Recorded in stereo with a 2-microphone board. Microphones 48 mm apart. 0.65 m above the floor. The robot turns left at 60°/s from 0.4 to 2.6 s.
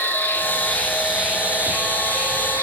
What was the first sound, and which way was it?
An insect, 35° left.